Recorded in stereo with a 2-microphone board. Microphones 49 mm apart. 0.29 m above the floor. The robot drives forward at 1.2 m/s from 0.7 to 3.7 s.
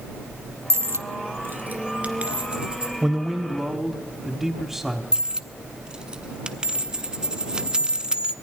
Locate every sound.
0.7 s a dropped coin: 65° right (ahead or behind), 0.9 m; by 2.9 s 20° right (ahead or behind), 2.5 m
3.0 s a man speaking: 10° right (ahead or behind), 1.0 m; by 5.0 s 5° right (ahead or behind), 1.6 m
5.1 s a dropped coin: 15° right (ahead or behind), 0.8 m